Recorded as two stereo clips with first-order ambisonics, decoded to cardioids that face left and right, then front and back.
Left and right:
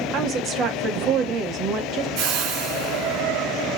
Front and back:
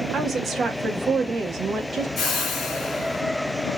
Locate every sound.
0.1 s a woman speaking: 125° right, 1.1 m
2.2 s a whoosh: 65° right, 1.4 m